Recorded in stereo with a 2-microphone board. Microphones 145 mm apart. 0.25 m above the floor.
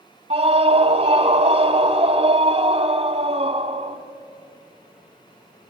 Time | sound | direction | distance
0.3 | a scream | 40° right (ahead or behind) | 1.3 m